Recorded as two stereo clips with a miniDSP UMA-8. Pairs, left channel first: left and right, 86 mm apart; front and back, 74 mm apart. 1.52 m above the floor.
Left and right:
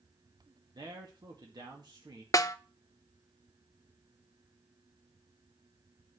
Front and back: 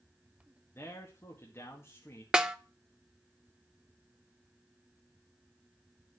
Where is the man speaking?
55° right, 1.9 m.